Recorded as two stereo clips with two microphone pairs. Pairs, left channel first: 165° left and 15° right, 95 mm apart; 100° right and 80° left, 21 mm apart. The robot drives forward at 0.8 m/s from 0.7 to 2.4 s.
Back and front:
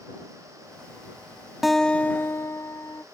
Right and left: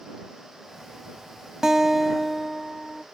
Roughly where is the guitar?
Left.